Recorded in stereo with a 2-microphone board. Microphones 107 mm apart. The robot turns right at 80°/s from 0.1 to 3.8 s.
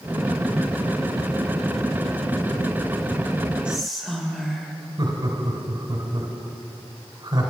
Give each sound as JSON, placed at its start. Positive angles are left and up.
{"t": 3.6, "sound": "whispering", "side_deg": -10, "distance_m": 2.0}
{"t": 5.0, "sound": "laughter", "side_deg": -40, "distance_m": 2.0}